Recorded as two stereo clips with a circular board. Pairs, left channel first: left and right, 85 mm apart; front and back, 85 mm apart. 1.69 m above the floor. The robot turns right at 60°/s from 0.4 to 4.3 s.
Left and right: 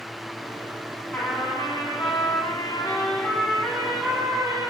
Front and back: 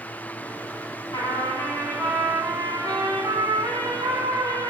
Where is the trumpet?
20° left, 4.5 m; by 4.7 s 145° right, 4.5 m.